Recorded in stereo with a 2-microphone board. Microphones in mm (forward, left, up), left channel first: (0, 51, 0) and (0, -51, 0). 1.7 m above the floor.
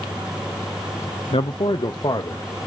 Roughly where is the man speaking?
Left.